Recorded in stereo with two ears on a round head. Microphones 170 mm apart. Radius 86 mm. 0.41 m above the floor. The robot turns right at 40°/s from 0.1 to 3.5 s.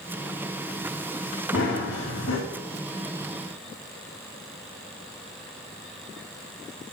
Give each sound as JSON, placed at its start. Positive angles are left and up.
{"t": 1.5, "sound": "running footsteps", "azimuth_deg": 40, "distance_m": 7.0}